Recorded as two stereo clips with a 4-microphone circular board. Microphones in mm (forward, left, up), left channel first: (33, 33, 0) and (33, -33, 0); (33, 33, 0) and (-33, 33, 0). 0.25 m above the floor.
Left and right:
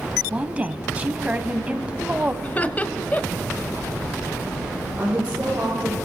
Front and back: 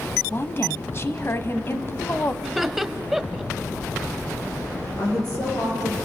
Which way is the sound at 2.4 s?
100° left.